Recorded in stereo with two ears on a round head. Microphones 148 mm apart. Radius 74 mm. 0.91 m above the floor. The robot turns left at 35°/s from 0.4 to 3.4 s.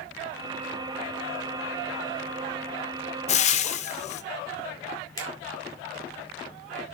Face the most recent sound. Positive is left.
turn(degrees=25)  # may be behind; listen again after turning